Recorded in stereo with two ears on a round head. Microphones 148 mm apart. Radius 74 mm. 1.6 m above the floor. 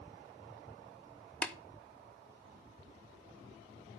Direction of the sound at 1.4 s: 10° left (ahead or behind).